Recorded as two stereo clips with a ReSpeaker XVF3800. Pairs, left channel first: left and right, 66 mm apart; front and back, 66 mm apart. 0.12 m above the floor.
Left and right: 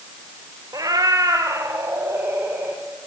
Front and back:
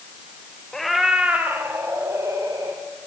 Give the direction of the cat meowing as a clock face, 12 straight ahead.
3 o'clock.